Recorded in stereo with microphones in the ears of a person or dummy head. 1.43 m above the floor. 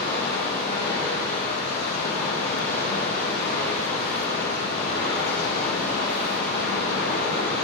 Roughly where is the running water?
Left.